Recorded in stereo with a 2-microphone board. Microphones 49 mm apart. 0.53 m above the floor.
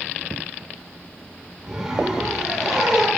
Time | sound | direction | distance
1.6 | a zipper | 15° right (ahead or behind) | 6.5 m